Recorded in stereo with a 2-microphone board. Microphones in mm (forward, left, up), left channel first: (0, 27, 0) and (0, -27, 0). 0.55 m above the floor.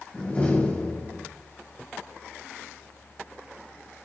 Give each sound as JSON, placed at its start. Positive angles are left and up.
{"t": 0.1, "sound": "a door slam", "side_deg": 25, "distance_m": 2.5}